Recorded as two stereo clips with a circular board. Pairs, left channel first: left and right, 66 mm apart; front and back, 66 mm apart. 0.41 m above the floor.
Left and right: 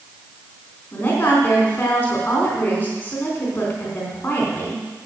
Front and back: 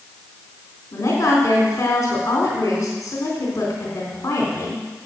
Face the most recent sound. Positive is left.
turn(degrees=30)